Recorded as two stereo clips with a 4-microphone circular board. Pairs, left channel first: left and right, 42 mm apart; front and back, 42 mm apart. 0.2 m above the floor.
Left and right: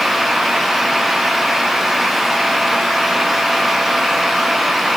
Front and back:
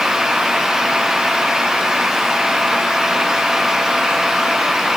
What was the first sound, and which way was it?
Only background noise.